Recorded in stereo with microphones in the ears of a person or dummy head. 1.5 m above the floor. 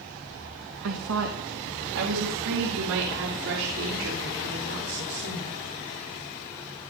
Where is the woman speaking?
80° right, 1.6 m; by 5.6 s 60° right (ahead or behind), 4.5 m.